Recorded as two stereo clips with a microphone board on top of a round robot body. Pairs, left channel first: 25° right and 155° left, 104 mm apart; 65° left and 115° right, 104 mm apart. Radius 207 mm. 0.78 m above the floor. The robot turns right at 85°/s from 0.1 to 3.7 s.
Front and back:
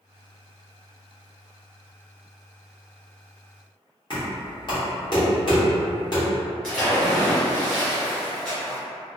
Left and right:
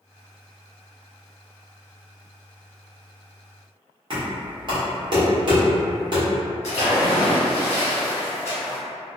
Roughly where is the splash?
Ahead left.